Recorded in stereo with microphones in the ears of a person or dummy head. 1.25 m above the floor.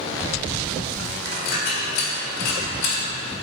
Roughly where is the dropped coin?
Left.